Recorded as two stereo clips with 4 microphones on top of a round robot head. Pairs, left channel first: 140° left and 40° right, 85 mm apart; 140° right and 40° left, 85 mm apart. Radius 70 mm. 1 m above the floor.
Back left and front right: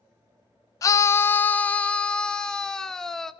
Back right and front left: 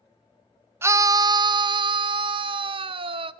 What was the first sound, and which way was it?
A scream, 95° left.